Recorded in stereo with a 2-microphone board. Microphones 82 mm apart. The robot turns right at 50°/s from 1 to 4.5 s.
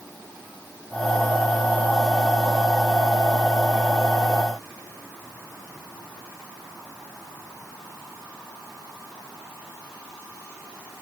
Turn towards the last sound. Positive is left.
No sound to turn to.